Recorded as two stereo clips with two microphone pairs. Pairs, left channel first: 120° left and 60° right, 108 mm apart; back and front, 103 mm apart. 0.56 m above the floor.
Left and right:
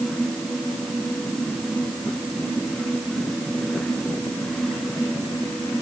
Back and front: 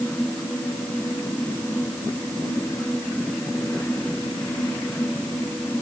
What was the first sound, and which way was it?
Only background noise.